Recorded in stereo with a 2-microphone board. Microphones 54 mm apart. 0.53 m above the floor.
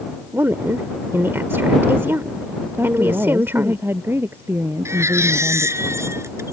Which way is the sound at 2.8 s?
50° right (ahead or behind).